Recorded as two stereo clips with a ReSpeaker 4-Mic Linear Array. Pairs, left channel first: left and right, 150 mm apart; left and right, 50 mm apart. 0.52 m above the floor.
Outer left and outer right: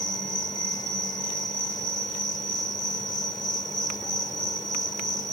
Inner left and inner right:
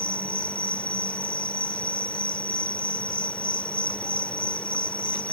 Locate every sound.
0.0 s an insect: 30° left (ahead or behind)